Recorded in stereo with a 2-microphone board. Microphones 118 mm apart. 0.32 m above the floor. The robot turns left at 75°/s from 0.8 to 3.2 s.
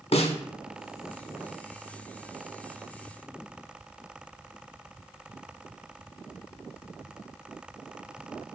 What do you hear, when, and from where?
0.1 s a snare drum: 60° left (ahead or behind), 0.5 m